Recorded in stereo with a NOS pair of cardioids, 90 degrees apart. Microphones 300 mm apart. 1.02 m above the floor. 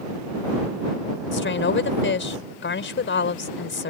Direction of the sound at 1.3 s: 35° left.